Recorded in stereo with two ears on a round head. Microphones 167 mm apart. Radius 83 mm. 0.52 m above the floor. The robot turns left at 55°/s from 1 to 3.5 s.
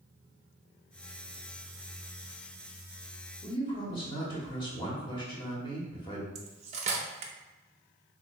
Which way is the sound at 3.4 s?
25° left (ahead or behind).